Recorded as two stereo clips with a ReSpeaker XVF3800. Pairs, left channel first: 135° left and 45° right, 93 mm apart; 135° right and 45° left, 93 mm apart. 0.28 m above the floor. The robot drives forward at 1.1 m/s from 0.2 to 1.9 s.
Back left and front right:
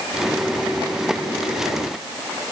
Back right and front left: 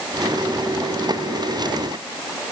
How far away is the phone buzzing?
No phone buzzing in this recording.